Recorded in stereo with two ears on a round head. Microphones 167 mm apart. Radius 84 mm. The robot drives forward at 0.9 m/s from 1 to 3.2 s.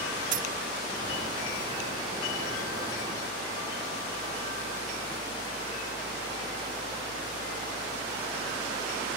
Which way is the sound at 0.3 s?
45° right (ahead or behind).